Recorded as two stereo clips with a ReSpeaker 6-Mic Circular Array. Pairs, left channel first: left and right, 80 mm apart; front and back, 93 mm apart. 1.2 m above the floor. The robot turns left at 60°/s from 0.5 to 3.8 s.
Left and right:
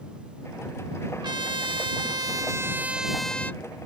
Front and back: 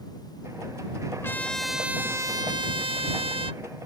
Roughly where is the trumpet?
Ahead right.